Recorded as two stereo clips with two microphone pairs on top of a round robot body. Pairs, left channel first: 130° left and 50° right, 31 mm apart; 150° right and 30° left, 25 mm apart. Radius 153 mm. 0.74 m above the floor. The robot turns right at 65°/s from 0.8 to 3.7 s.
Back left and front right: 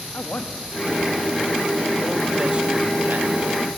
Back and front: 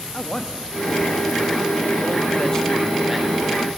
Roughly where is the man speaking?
Behind left.